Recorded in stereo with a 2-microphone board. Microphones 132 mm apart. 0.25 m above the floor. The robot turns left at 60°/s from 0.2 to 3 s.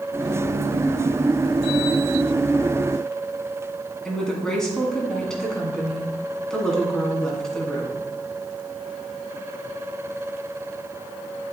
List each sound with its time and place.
4.0 s a woman speaking: 5° left (ahead or behind), 1.8 m